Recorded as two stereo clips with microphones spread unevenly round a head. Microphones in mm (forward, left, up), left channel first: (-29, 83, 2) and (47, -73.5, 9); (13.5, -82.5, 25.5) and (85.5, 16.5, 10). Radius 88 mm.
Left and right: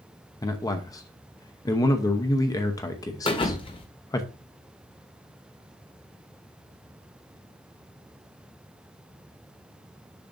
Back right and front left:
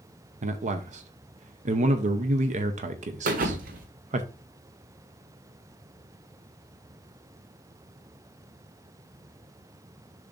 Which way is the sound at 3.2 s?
55° left.